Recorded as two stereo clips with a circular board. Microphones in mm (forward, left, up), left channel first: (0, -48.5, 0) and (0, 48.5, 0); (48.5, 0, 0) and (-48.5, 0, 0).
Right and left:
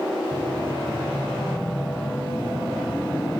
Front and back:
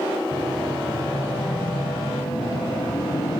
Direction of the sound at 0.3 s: 20° right.